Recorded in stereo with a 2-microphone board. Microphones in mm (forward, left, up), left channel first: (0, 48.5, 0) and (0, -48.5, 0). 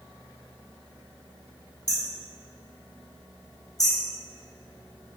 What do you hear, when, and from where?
1.9 s hammering: 40° left (ahead or behind), 2 m